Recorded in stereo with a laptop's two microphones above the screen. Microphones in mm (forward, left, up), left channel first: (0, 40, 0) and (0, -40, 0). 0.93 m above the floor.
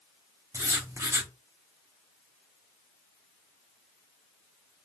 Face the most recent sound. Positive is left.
turn(degrees=-40)  # may be behind; listen again after turning